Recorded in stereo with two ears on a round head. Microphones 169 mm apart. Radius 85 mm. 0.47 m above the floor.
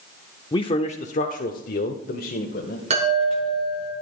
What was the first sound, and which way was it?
A man speaking, 25° left (ahead or behind).